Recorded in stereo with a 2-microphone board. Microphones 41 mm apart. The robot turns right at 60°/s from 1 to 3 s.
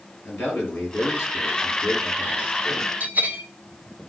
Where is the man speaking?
55° left, 4.5 m; by 2.9 s 170° left, 4.5 m.